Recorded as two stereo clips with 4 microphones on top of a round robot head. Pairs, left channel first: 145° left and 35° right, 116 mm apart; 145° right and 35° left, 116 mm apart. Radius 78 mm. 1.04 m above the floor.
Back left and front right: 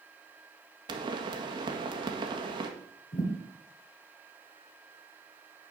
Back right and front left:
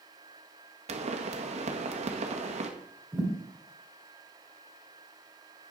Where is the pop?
10° left, 1.7 m.